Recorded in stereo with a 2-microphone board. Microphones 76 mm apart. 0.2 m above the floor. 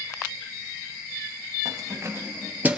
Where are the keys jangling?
45° right (ahead or behind), 2.5 m; by 2.8 s 20° right (ahead or behind), 2.5 m.